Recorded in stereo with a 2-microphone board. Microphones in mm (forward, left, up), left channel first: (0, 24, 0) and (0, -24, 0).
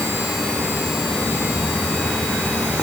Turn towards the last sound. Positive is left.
No sound to turn to.